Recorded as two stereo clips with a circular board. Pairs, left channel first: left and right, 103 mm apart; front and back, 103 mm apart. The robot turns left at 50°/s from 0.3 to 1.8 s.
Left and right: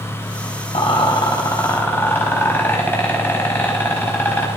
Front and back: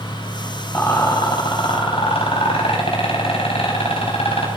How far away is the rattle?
About 4 m.